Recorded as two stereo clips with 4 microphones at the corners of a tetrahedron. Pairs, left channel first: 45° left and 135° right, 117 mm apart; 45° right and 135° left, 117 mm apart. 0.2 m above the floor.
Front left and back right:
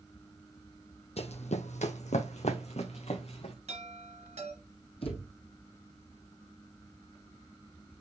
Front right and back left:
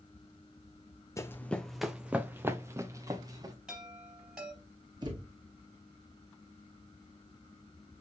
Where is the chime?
140° right, 3 m.